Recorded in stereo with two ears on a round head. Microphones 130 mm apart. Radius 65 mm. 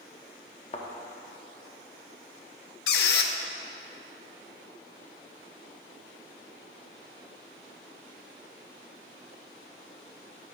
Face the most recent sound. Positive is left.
turn(degrees=75)  # may be behind; listen again after turning